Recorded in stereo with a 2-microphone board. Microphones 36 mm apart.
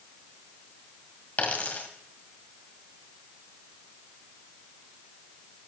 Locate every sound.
1.4 s a dropped coin: 45° left (ahead or behind), 1.7 m